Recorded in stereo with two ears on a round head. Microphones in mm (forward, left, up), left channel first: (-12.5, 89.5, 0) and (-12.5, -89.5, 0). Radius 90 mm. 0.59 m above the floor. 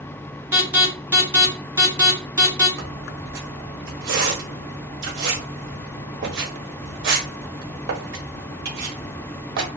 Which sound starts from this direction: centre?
An alarm, at 0.5 s.